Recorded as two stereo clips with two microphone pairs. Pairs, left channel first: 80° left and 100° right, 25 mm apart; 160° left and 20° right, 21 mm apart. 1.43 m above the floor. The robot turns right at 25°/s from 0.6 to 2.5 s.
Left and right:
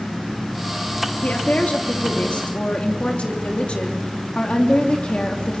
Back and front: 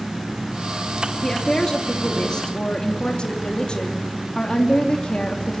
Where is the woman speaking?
85° left, 2.5 m; by 5.6 s 120° left, 2.5 m.